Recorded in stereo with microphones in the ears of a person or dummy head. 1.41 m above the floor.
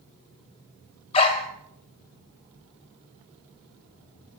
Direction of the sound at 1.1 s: 35° left (ahead or behind).